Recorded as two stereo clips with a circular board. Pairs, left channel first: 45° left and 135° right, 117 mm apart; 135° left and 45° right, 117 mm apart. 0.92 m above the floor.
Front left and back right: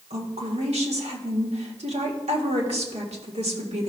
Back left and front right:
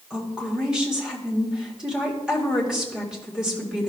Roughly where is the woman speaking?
Behind right.